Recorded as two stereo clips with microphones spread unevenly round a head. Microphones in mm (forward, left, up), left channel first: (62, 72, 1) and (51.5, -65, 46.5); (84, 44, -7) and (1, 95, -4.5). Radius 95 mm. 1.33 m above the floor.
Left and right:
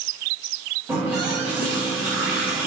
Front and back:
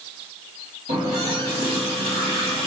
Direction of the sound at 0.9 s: 170° right.